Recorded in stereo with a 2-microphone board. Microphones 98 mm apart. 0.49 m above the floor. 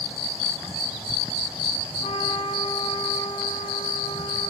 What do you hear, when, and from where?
2.0 s a trumpet: 80° left, 0.9 m